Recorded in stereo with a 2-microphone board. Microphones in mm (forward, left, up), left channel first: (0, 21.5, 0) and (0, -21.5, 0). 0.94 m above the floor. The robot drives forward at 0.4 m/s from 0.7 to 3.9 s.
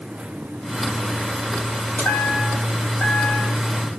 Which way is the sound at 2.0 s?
70° left (ahead or behind).